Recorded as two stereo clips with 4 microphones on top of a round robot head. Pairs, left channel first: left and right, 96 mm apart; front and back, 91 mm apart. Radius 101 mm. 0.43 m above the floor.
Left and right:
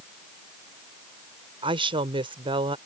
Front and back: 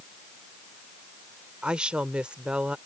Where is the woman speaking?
100° right.